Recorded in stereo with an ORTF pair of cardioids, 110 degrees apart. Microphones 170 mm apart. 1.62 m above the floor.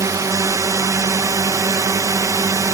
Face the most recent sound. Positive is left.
turn(degrees=-20)